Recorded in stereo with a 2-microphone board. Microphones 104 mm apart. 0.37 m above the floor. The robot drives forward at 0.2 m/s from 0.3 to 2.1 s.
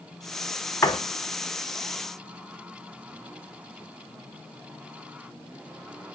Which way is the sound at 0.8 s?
25° left (ahead or behind).